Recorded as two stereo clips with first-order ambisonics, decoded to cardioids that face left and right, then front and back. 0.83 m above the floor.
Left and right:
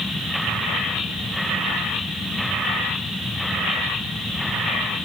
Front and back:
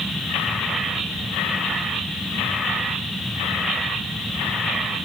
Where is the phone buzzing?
No phone buzzing in this recording.